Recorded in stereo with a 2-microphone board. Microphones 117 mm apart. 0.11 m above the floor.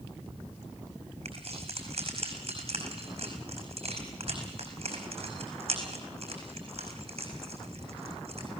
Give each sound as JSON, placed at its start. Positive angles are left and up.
{"t": 1.2, "sound": "keys jangling", "side_deg": -55, "distance_m": 4.5}